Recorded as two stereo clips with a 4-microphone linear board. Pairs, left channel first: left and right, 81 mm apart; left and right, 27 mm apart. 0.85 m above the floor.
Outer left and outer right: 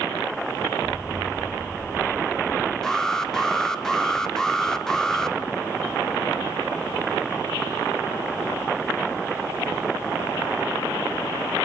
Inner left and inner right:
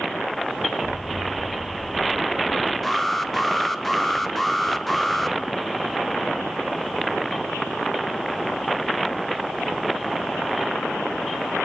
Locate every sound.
0.8 s an explosion: 10° right (ahead or behind), 8 m
2.8 s an alarm: 10° left (ahead or behind), 1.2 m